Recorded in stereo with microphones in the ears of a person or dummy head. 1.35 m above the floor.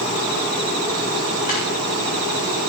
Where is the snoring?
40° left (ahead or behind), 3 m.